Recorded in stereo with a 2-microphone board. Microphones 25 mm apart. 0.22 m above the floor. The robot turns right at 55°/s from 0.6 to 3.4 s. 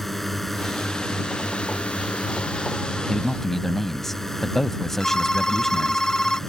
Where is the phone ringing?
30° left (ahead or behind).